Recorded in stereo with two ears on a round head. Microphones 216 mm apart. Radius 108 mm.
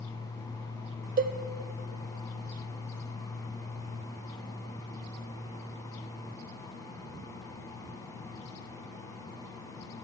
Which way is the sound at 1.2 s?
35° right (ahead or behind).